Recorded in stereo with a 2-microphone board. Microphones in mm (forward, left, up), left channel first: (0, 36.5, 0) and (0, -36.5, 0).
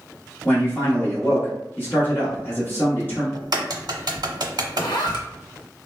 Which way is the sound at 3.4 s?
70° right (ahead or behind).